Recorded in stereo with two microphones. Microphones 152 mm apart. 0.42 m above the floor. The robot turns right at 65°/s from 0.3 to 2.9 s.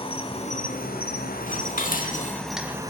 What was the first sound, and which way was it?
An insect, 35° left.